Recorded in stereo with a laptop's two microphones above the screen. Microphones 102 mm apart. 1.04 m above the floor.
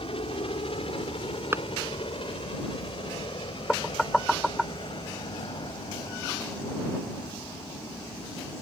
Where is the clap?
20° right (ahead or behind).